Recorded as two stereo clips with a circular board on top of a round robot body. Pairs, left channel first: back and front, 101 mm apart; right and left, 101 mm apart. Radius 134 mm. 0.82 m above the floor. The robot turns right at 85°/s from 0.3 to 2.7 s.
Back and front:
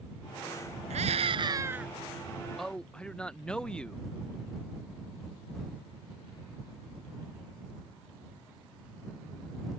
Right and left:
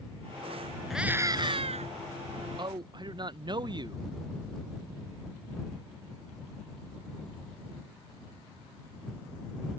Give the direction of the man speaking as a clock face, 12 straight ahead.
9 o'clock.